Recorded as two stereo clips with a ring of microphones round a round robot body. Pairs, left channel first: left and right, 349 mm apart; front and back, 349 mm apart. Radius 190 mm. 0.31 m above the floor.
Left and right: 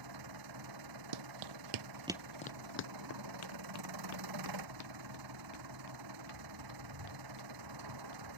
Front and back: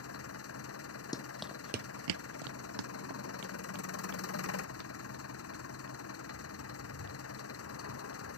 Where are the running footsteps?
80° right; by 8.3 s 125° left.